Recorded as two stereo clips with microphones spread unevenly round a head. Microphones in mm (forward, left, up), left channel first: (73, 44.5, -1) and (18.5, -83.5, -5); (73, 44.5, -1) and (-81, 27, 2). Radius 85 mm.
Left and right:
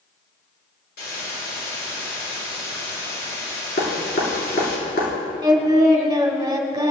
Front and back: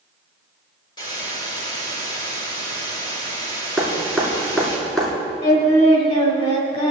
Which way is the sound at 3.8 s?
95° left.